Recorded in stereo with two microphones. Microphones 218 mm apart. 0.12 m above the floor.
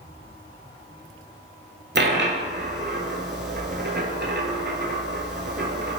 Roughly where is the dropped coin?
Right.